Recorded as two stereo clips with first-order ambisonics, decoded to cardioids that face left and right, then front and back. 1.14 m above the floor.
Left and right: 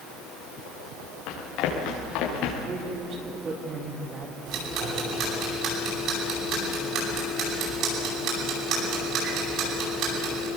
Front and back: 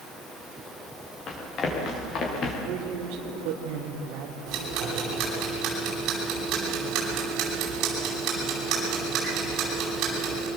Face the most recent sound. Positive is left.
turn(degrees=-135)